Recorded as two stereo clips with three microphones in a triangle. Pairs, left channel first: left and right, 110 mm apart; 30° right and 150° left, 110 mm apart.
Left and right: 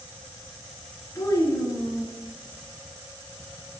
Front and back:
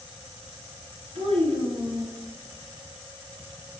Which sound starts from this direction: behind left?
A child speaking, at 1.1 s.